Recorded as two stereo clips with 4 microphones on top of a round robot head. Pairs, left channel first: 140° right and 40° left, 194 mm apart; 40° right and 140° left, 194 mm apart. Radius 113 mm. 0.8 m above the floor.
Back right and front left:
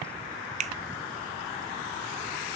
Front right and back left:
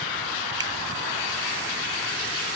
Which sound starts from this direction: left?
A finger snap, at 0.6 s.